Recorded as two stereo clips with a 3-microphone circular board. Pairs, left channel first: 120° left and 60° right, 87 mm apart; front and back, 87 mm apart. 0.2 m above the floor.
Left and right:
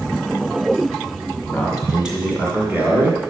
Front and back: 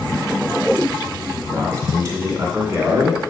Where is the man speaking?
155° right, 1.9 m; by 3.2 s 110° right, 2.5 m.